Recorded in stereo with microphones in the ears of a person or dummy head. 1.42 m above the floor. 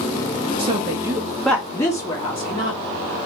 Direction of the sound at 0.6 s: 25° right (ahead or behind).